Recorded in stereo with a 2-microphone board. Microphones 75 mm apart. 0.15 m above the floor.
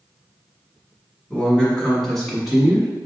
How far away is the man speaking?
About 1.5 m.